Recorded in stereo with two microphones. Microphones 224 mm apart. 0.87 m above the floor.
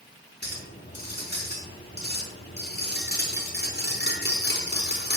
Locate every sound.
0.4 s a clink: 45° left (ahead or behind), 4.5 m